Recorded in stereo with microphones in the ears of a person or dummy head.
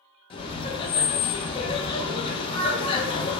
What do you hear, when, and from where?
0.3 s laughter: 25° left (ahead or behind), 0.5 m